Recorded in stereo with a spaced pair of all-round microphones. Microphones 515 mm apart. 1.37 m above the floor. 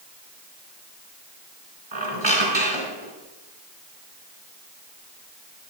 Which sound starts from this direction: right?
A squeak, at 1.9 s.